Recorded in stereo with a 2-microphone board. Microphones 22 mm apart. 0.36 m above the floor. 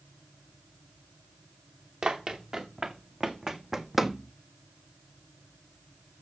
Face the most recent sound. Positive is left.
turn(degrees=60)  # may be behind; listen again after turning